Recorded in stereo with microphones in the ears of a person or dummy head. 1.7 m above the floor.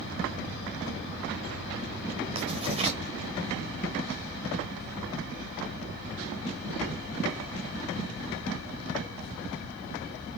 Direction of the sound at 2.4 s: 30° right (ahead or behind).